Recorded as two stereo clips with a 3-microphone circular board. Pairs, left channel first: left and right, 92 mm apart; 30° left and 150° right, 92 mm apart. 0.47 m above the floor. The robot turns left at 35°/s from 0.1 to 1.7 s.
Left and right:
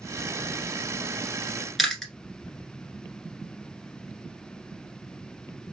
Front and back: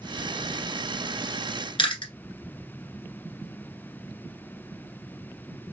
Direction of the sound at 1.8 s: Straight ahead.